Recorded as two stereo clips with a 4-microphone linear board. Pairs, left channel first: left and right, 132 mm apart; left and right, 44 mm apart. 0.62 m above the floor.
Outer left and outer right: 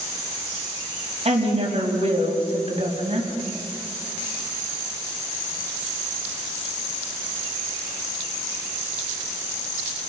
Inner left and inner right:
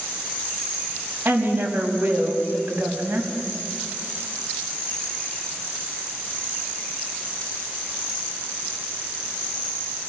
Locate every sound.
1.2 s a woman speaking: 50° right (ahead or behind), 5 m